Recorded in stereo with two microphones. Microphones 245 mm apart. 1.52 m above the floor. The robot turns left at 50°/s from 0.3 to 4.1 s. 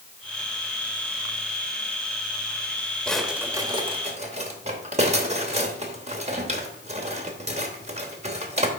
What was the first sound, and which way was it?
A drawer, 5° left (ahead or behind).